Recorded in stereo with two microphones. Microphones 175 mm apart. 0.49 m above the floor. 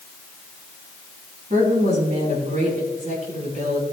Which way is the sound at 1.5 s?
55° right (ahead or behind).